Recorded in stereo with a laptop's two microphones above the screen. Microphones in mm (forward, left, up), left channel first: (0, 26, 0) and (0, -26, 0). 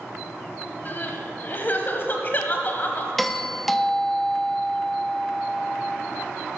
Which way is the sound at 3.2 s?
5° left (ahead or behind).